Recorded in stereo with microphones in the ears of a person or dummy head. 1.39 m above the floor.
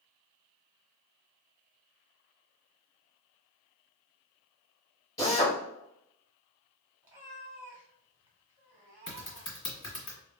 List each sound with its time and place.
5.2 s a drill: 20° left (ahead or behind), 2 m
7.0 s a cat meowing: 10° right (ahead or behind), 1.4 m
9.1 s typing on a keyboard: 30° left (ahead or behind), 1.9 m